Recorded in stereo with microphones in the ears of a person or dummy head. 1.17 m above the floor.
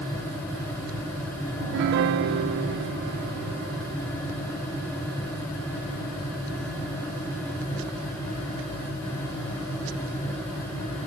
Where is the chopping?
No chopping in this recording.